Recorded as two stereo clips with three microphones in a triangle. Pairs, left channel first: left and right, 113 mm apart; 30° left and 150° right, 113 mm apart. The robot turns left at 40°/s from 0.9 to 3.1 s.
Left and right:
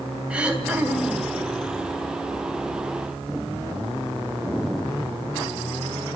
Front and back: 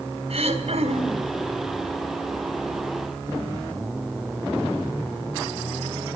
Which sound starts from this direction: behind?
Throat clearing, at 0.3 s.